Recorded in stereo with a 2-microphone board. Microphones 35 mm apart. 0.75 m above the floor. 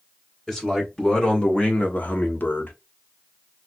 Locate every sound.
0.5 s a man speaking: 15° left (ahead or behind), 2 m; by 2.7 s 70° left (ahead or behind), 1.3 m